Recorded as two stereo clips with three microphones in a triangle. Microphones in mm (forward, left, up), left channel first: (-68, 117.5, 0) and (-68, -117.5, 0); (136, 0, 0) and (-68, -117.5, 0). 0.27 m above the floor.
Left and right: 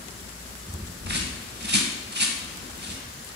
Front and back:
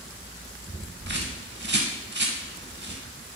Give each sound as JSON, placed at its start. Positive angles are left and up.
{"t": 1.1, "sound": "a bird", "azimuth_deg": -125, "distance_m": 0.6}